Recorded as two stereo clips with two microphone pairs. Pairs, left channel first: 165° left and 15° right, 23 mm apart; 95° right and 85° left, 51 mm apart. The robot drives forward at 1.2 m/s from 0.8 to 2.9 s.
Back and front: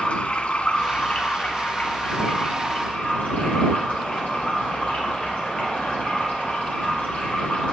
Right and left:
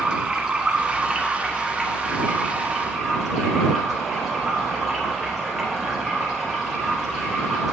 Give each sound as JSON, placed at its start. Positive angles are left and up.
{"t": 0.0, "sound": "running water", "azimuth_deg": 155, "distance_m": 1.3}